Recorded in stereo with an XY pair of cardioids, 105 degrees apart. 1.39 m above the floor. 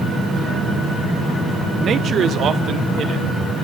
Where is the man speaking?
50° right, 0.9 m; by 3.2 s 65° right, 3 m.